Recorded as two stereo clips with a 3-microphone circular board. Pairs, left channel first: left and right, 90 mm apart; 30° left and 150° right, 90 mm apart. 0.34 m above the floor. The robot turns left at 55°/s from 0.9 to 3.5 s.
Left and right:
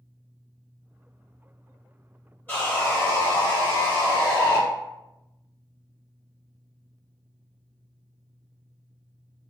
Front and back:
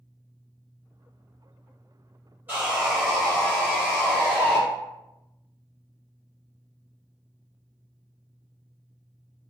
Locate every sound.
2.5 s sawing: 155° left, 1.3 m; by 4.6 s 95° left, 1.3 m